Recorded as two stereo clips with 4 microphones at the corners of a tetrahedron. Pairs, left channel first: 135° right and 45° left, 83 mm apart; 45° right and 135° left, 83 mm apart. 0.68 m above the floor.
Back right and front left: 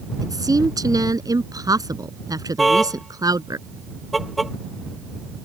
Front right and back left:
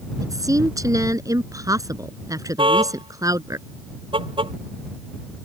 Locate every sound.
0.2 s a woman speaking: 85° left
2.6 s a car horn: 135° left